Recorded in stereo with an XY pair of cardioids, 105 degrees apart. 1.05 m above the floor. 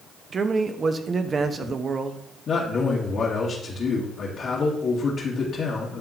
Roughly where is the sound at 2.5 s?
Ahead left.